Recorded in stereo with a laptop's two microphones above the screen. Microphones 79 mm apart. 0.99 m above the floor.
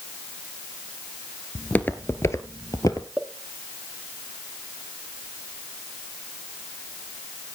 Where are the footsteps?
15° left (ahead or behind), 1.1 m; by 3.1 s 50° left (ahead or behind), 1.5 m.